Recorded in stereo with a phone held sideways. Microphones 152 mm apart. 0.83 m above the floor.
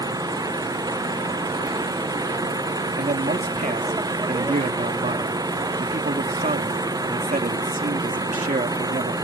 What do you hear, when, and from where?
0.0 s an engine running: 25° right (ahead or behind)
3.0 s a man speaking: 60° right (ahead or behind)